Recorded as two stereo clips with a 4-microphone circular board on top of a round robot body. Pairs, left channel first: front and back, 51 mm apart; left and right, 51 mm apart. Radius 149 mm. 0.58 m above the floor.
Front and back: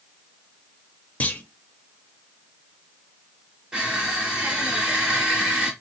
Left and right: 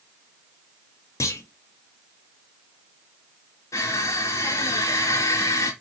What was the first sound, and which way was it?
A clunk, 65° left.